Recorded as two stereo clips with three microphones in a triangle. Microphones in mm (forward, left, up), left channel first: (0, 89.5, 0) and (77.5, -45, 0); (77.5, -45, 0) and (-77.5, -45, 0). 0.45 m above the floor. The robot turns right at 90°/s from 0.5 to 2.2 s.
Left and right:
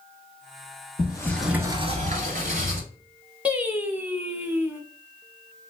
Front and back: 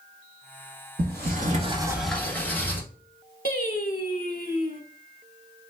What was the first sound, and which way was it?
A sliding door, 170° left.